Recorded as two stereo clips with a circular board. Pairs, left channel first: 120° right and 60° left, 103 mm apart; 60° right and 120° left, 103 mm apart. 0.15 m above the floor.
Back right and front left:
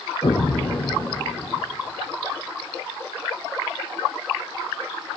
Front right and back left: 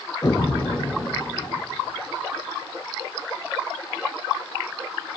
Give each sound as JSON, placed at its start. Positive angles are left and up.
{"t": 0.2, "sound": "an explosion", "azimuth_deg": -100, "distance_m": 1.0}